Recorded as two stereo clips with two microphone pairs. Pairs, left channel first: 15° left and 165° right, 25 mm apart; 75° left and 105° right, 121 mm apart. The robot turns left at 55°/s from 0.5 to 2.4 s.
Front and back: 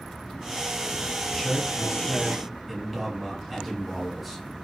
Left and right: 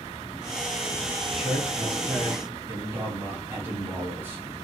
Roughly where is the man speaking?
Ahead.